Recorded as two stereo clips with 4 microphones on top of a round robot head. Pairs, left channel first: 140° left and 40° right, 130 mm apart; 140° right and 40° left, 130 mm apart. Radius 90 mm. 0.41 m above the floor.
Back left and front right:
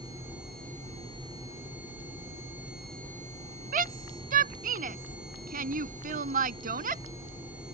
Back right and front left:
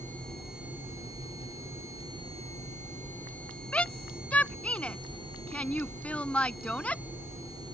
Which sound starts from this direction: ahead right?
A shout, at 3.7 s.